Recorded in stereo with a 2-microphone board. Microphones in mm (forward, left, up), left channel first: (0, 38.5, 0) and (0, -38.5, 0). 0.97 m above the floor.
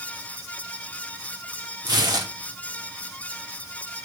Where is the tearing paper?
60° right (ahead or behind), 1.8 m.